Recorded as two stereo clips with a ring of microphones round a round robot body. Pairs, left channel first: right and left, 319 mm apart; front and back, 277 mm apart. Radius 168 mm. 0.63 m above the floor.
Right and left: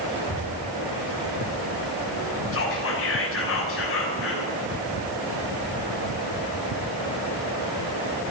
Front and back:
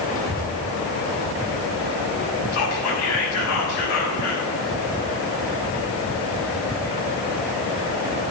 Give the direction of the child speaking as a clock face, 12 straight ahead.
10 o'clock.